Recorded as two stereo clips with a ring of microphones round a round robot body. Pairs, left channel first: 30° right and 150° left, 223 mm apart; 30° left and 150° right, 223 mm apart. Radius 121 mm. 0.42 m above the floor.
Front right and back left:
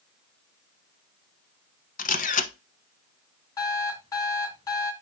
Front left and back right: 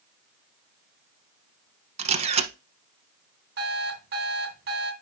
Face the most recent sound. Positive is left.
turn(degrees=-105)